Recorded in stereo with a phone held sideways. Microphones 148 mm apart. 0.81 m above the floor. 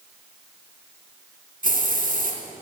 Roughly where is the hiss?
Right.